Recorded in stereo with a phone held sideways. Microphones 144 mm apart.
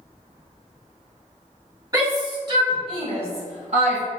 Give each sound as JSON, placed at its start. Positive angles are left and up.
{"t": 1.9, "sound": "a shout", "side_deg": -25, "distance_m": 1.7}